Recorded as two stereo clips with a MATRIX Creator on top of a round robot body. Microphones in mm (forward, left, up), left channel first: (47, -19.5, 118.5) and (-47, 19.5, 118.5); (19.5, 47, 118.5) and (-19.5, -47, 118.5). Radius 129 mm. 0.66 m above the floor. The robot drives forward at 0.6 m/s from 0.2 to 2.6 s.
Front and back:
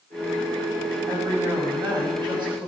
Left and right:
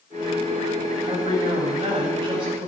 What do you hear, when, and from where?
1.1 s a woman speaking: 155° right, 5 m